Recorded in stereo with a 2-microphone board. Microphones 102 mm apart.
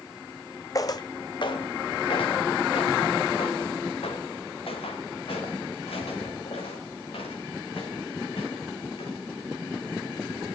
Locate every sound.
0.8 s footsteps: 40° left (ahead or behind), 0.6 m; by 9.1 s 75° left (ahead or behind), 5.5 m